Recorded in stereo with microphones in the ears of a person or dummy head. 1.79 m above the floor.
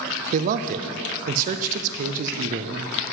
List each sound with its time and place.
0.3 s a man speaking: 50° right (ahead or behind), 0.5 m